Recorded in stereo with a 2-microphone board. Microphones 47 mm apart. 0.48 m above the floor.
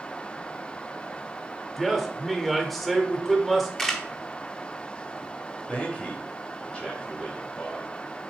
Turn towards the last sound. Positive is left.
turn(degrees=25)  # may be behind; listen again after turning